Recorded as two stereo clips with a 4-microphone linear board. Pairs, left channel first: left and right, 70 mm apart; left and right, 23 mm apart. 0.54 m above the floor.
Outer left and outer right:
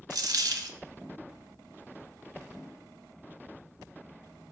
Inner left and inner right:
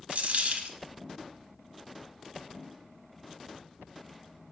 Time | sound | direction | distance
0.1 | a dropped coin | 65° right (ahead or behind) | 0.8 m